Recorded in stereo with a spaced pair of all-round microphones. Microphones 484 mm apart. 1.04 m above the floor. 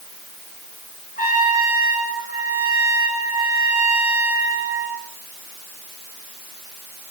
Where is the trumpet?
20° left (ahead or behind), 9 m.